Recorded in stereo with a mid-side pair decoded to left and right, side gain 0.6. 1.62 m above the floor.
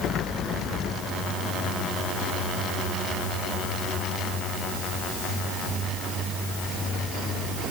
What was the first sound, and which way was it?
Only background noise.